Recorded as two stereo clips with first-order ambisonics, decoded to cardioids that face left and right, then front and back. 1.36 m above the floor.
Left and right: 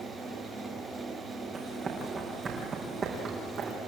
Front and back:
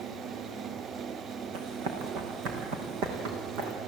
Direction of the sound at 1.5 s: 160° right.